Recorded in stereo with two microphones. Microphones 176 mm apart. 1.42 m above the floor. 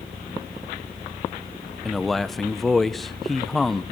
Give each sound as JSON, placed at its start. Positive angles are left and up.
{"t": 1.9, "sound": "a man speaking", "side_deg": 0, "distance_m": 1.1}